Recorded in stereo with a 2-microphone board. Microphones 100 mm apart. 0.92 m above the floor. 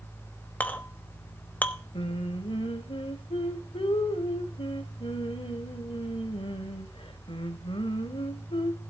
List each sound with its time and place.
0.6 s a clink: 15° left (ahead or behind), 0.9 m
1.9 s singing: 70° left (ahead or behind), 1.3 m